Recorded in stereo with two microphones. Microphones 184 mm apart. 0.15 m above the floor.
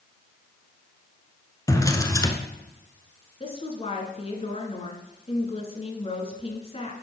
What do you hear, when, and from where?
1.7 s a drawer: 20° left (ahead or behind), 0.8 m
3.4 s a woman speaking: 35° left (ahead or behind), 1.4 m